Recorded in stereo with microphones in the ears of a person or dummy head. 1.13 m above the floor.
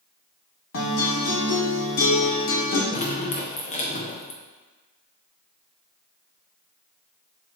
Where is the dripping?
35° left (ahead or behind), 0.8 m.